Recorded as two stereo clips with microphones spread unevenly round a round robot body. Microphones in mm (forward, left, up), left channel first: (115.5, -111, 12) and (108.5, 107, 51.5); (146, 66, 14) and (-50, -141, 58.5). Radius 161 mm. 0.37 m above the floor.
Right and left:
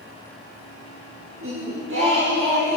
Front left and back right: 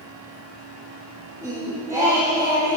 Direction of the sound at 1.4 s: 145° left.